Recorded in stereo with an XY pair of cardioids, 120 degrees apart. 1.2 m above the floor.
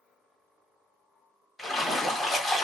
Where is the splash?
Straight ahead, 1.9 m.